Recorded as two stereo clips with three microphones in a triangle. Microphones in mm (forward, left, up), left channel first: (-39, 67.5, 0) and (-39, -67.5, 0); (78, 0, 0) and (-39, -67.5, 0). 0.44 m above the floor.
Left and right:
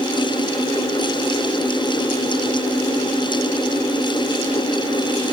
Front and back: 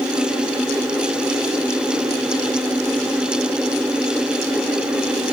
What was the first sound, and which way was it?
Only background noise.